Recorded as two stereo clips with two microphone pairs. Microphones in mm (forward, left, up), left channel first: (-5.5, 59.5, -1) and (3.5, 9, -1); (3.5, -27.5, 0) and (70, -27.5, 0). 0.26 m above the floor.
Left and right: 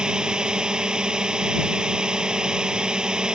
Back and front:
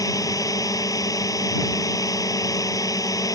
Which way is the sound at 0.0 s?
155° right.